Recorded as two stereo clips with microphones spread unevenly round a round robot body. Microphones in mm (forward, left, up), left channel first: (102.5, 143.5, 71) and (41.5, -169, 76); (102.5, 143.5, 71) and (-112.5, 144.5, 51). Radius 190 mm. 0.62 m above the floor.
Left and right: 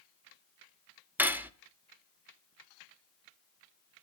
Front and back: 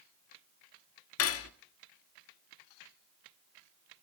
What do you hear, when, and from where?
1.2 s cutlery clinking: 15° right, 0.9 m